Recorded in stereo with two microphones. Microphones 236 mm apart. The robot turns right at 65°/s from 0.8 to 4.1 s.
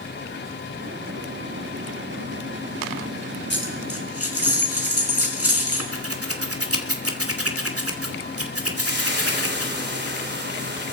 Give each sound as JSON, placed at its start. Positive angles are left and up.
{"t": 3.5, "sound": "a dropped coin", "azimuth_deg": 50, "distance_m": 4.5}
{"t": 5.9, "sound": "scissors", "side_deg": -75, "distance_m": 2.5}
{"t": 8.8, "sound": "frying", "side_deg": -50, "distance_m": 3.5}